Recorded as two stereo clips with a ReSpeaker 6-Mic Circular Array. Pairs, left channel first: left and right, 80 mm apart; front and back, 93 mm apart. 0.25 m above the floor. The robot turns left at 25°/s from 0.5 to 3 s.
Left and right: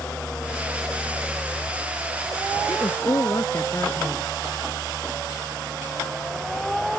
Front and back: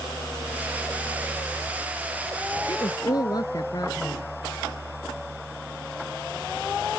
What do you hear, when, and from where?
2.7 s a woman speaking: 50° left; by 4.3 s 40° left